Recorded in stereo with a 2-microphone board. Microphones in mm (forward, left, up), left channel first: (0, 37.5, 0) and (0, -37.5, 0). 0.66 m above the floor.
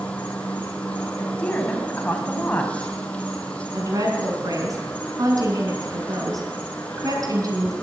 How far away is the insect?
About 2.5 m.